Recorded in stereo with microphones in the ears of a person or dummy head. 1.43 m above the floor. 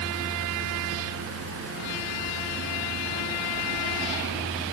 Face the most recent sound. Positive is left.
No sound to turn to.